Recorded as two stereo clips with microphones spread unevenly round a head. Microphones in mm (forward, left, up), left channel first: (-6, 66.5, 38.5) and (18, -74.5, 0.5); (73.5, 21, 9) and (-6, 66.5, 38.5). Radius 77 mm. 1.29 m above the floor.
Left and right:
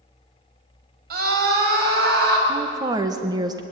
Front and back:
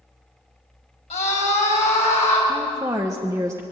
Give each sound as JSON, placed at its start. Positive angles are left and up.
{"t": 1.1, "sound": "a scream", "azimuth_deg": -55, "distance_m": 5.5}
{"t": 2.5, "sound": "a woman speaking", "azimuth_deg": -140, "distance_m": 1.1}